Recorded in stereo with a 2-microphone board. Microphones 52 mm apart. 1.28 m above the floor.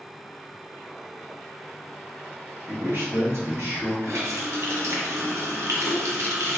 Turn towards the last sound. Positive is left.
turn(degrees=-70)  # may be behind; listen again after turning